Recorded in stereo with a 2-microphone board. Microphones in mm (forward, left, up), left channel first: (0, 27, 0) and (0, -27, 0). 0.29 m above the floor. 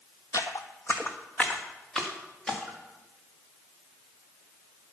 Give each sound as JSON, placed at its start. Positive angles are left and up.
{"t": 0.3, "sound": "footsteps", "side_deg": 65, "distance_m": 0.6}